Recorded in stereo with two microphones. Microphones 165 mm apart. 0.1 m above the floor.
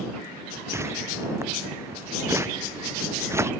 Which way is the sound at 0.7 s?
15° right (ahead or behind).